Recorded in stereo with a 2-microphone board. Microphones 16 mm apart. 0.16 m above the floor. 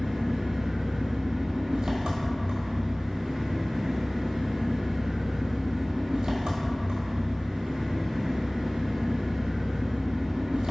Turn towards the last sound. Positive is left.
turn(degrees=-65)  # may be behind; listen again after turning